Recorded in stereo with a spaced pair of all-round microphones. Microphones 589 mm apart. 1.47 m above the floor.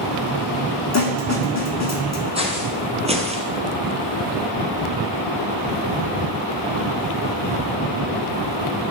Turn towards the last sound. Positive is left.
turn(degrees=-10)  # may be behind; listen again after turning